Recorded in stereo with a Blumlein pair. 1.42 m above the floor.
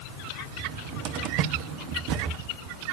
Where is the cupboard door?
40° right, 1.2 m.